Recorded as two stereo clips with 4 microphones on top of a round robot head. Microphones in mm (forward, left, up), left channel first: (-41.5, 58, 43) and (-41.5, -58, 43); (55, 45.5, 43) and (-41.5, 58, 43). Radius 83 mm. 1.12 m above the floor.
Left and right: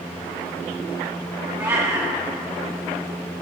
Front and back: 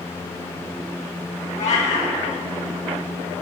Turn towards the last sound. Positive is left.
turn(degrees=-20)